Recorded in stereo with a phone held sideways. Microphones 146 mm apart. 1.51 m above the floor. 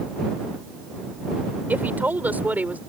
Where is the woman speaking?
10° right (ahead or behind).